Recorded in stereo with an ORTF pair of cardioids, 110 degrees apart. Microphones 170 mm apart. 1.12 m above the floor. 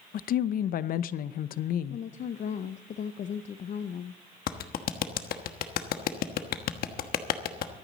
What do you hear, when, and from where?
0.1 s a woman speaking: 55° left, 0.7 m
1.9 s a woman speaking: 45° left, 0.7 m
4.5 s a clap: 60° left, 1.2 m